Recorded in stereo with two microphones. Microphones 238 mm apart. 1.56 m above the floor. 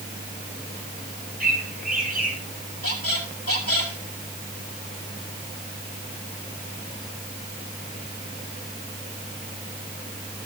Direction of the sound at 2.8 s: 70° left (ahead or behind).